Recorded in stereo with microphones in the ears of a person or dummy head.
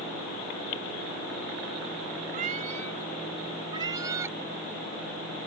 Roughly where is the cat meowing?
Right.